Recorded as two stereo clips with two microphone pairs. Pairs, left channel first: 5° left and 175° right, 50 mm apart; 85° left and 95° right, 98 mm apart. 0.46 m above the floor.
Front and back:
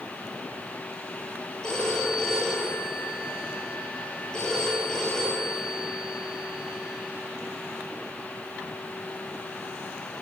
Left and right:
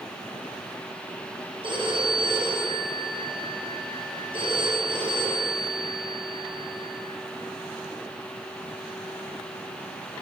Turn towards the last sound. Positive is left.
turn(degrees=-65)